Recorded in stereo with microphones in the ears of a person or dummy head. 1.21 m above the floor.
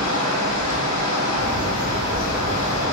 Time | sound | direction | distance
0.0 | running water | 80° left | 0.9 m
1.3 | a bird | 50° right (ahead or behind) | 1.8 m